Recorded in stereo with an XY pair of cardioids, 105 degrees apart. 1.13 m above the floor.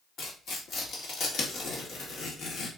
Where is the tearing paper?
70° left, 1.8 m.